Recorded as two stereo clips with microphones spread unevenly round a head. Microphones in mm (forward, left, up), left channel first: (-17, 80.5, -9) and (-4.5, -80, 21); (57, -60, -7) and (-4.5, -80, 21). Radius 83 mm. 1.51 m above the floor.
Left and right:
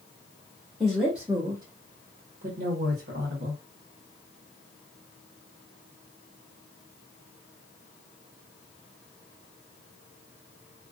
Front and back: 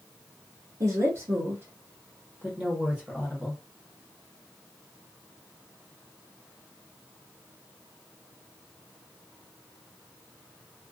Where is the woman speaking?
175° right, 0.8 m; by 3.6 s 75° right, 1.2 m.